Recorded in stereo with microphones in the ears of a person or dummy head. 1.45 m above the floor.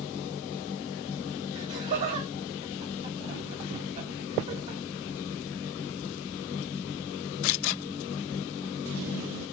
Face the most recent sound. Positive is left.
turn(degrees=-35)  # may be behind; listen again after turning